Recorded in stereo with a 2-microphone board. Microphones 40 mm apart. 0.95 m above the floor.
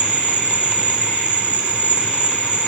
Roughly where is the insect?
Right.